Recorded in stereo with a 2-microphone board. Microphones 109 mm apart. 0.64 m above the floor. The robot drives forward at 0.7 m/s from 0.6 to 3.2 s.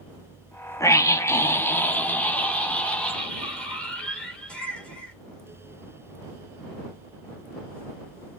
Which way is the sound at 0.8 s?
30° left (ahead or behind).